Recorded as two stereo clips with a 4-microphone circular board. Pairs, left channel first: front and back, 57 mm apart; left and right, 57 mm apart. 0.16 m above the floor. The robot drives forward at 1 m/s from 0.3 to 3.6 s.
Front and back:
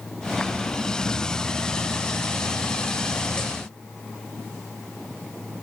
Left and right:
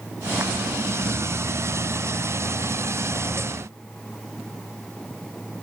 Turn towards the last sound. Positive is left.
No sound to turn to.